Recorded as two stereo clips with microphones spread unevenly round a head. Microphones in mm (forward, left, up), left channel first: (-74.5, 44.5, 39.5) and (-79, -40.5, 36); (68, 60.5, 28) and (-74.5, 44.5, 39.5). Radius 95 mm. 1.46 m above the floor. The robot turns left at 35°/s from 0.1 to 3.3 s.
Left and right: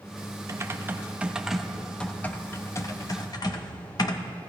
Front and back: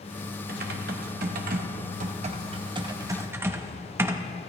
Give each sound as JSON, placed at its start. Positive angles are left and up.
{"t": 0.5, "sound": "typing on a keyboard", "azimuth_deg": -145, "distance_m": 1.1}